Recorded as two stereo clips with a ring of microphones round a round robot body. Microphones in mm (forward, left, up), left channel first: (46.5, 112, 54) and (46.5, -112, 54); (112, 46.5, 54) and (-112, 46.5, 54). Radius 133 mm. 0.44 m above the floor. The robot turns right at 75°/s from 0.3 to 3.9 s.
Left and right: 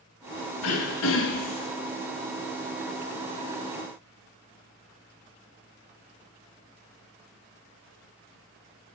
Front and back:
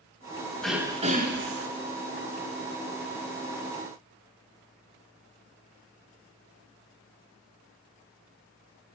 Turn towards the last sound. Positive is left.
turn(degrees=-30)